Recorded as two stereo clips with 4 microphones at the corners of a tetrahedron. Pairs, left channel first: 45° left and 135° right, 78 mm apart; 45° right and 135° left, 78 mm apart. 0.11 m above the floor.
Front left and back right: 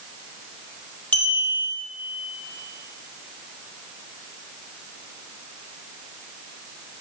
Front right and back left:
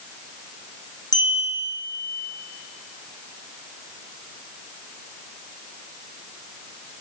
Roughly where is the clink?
Ahead.